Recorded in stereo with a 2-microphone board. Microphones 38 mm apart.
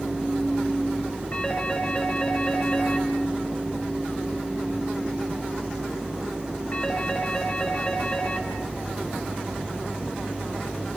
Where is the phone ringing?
40° left (ahead or behind), 4.5 m.